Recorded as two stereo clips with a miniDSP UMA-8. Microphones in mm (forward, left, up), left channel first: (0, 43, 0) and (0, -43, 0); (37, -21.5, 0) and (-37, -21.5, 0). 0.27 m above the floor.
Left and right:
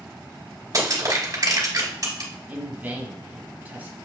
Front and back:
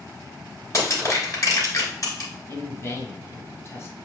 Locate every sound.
0.7 s crushing: 45° right, 2.5 m
2.5 s a man speaking: 30° right, 1.3 m